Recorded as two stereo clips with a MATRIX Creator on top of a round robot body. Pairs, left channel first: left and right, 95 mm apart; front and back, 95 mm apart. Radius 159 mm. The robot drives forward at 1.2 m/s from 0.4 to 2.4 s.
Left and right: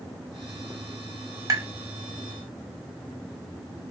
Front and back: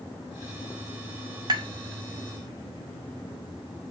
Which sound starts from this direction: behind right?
Tapping, at 1.5 s.